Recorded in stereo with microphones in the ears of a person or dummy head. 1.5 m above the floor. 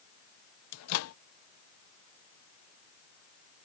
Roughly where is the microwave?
Left.